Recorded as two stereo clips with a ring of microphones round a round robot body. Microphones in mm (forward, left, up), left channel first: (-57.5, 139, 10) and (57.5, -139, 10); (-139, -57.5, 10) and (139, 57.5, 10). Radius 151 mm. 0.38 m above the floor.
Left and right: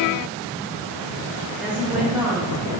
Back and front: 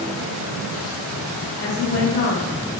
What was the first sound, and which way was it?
A woman speaking, 150° right.